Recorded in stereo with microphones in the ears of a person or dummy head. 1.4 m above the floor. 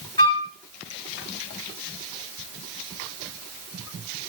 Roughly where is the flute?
Centre.